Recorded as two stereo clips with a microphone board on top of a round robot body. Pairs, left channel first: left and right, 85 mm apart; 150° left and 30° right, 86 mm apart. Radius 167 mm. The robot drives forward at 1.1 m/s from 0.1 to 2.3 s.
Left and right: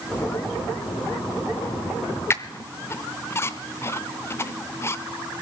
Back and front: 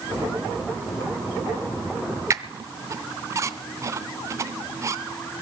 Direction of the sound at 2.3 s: 25° left.